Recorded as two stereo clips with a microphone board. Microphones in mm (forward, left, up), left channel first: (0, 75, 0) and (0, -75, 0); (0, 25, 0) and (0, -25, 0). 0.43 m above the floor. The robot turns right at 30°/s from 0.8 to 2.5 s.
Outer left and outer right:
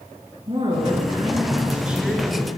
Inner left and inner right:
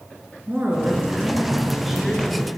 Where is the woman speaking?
40° right, 6.5 m; by 2.5 s 10° left, 6.5 m.